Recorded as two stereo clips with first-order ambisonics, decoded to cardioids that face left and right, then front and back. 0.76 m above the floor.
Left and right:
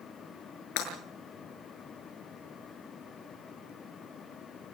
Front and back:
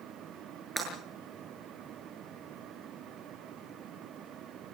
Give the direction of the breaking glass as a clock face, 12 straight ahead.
9 o'clock.